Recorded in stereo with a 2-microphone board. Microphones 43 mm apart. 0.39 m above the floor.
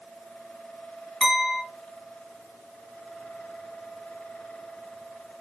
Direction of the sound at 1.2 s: 15° left (ahead or behind).